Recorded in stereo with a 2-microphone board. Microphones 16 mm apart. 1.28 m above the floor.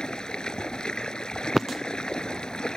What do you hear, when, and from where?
0.0 s running water: 65° left (ahead or behind)